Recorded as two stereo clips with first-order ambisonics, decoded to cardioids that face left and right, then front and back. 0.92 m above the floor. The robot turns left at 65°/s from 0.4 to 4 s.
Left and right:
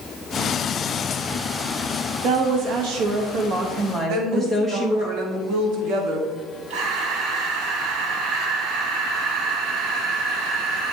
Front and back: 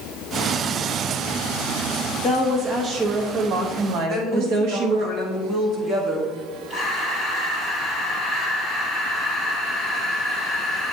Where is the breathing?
105° right, 2.5 m.